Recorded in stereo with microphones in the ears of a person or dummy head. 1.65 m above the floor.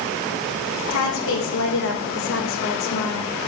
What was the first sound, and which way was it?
A woman speaking, 70° left (ahead or behind).